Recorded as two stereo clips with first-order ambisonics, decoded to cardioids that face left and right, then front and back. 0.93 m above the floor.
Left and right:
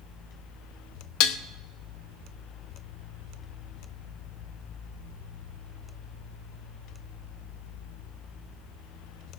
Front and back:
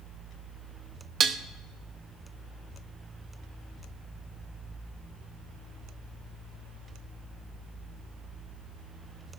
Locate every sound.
1.2 s dishes clattering: 115° left, 0.7 m